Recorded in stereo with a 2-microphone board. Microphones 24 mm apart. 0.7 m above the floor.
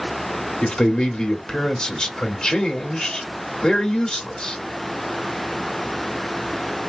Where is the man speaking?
35° left (ahead or behind), 1.7 m.